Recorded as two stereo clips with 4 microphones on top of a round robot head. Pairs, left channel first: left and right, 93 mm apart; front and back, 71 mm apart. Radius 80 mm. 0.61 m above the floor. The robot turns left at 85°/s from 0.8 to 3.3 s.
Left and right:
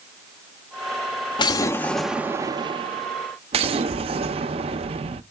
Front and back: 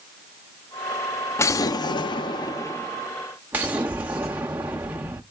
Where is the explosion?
55° left, 0.5 m; by 5.2 s 110° right, 0.5 m.